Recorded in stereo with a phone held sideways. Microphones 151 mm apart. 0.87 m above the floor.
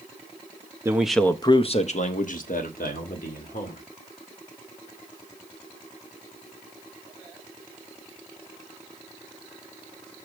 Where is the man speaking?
20° right (ahead or behind), 0.6 m; by 3.8 s 75° left (ahead or behind), 2.5 m.